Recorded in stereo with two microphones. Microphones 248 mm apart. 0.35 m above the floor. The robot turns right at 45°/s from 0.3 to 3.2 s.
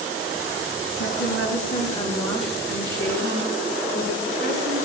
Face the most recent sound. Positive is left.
turn(degrees=-150)